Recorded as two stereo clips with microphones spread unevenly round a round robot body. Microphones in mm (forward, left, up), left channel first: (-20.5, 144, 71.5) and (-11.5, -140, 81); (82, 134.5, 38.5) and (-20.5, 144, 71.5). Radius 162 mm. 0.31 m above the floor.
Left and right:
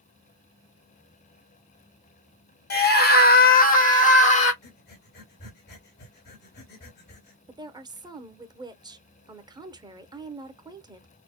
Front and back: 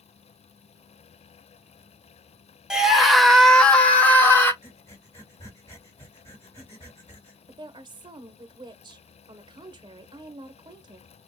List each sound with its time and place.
2.7 s a scream: 70° left, 1.7 m; by 4.5 s 35° left, 2 m
4.6 s breathing: 45° left, 3 m
7.5 s a woman speaking: 155° right, 0.9 m